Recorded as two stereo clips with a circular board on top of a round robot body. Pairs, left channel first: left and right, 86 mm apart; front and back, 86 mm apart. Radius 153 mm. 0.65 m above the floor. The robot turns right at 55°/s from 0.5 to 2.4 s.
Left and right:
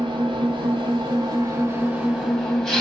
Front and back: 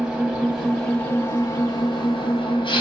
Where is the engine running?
105° right, 1.4 m; by 2.8 s straight ahead, 1.4 m.